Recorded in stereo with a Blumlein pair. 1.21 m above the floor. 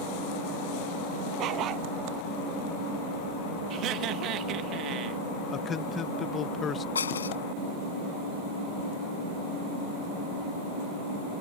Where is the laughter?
35° right.